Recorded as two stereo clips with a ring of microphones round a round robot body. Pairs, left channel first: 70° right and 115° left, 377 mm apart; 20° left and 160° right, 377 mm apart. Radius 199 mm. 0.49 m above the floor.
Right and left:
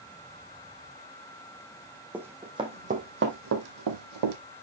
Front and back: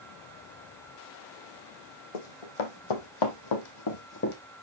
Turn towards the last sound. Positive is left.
turn(degrees=85)